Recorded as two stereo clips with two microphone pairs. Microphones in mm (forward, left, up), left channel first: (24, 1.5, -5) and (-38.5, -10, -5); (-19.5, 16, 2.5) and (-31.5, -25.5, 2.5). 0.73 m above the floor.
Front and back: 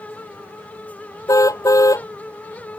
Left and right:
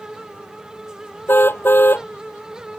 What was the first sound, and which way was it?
A car horn, 40° left.